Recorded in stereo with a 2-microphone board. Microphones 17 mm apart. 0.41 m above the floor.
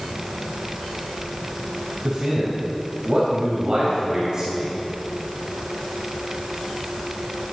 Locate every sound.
2.0 s a man speaking: 35° right (ahead or behind), 2.5 m